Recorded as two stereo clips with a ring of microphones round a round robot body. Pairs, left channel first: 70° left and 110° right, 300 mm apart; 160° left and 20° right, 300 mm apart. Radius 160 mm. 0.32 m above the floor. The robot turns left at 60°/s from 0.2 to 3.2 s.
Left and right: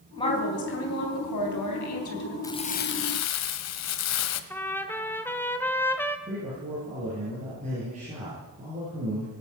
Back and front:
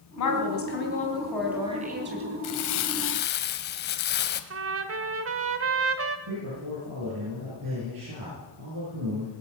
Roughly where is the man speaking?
Ahead right.